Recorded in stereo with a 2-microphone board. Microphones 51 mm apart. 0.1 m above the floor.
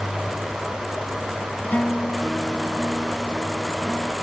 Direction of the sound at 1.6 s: 30° left (ahead or behind).